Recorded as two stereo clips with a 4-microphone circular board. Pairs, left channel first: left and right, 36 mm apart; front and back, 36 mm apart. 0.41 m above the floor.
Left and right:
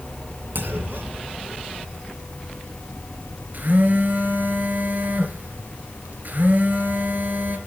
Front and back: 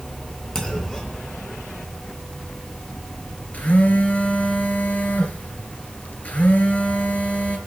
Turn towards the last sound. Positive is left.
turn(degrees=-55)